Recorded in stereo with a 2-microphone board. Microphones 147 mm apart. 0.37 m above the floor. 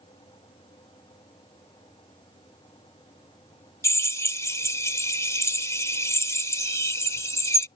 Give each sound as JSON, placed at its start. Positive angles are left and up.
{"t": 3.8, "sound": "a drill", "side_deg": 20}